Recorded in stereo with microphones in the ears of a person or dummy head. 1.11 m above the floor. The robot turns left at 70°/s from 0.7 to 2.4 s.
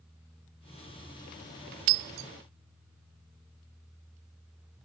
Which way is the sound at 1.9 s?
70° right (ahead or behind).